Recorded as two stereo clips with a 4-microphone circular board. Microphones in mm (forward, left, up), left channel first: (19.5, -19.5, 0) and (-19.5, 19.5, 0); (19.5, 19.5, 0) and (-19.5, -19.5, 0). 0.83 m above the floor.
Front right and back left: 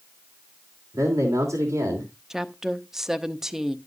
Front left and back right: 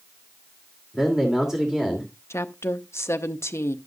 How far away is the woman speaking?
About 0.8 m.